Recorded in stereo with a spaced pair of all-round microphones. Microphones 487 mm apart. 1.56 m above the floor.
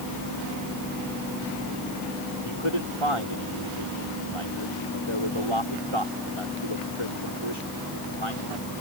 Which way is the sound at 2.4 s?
80° right.